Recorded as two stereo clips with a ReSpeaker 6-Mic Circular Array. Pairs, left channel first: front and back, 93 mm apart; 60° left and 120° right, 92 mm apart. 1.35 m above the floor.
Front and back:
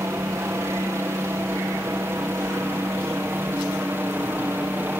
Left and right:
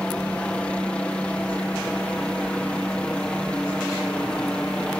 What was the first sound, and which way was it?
A helicopter, 135° left.